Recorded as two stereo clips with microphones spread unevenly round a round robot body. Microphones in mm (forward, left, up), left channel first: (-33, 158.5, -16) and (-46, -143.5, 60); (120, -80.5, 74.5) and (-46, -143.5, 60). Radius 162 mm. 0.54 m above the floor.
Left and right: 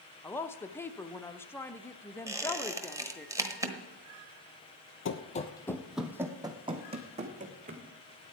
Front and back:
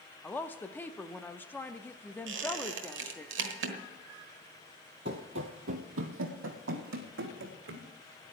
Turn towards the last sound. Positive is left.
turn(degrees=-155)